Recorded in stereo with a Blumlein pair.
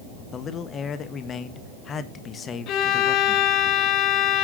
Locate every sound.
0.3 s a man speaking: 25° left, 1.6 m
2.7 s a violin: 35° left, 1.3 m